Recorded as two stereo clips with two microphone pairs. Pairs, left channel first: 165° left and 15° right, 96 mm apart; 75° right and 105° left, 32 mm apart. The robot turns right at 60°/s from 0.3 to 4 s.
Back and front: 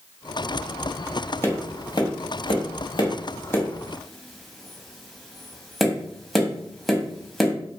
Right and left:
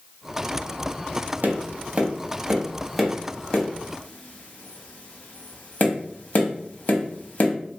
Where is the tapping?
100° left, 0.7 m; by 7.5 s 105° right, 0.7 m.